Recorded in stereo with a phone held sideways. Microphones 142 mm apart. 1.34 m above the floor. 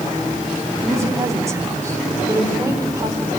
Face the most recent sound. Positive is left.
turn(degrees=-25)  # may be behind; listen again after turning